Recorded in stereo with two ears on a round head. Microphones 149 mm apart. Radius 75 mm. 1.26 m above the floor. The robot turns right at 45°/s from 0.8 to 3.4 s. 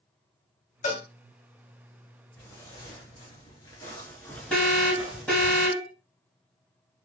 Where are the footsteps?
15° left (ahead or behind), 1.8 m; by 5.5 s 15° right (ahead or behind), 1.3 m.